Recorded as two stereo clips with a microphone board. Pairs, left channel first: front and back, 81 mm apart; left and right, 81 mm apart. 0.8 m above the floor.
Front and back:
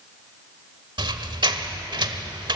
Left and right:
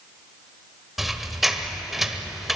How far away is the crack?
I don't hear a crack.